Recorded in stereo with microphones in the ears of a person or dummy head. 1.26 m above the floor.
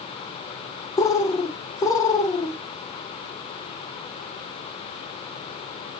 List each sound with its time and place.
1.0 s a bird: 10° left (ahead or behind), 0.5 m